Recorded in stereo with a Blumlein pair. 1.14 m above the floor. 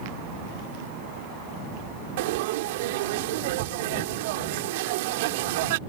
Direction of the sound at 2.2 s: 50° right.